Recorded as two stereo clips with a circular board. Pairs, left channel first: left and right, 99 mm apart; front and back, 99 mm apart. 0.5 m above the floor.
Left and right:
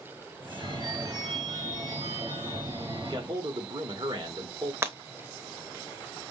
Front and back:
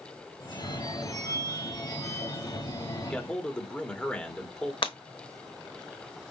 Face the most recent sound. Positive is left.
turn(degrees=-25)